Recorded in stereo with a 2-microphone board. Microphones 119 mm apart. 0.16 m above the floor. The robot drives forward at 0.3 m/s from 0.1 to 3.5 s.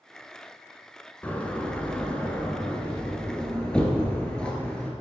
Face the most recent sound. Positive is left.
turn(degrees=10)  # may be behind; listen again after turning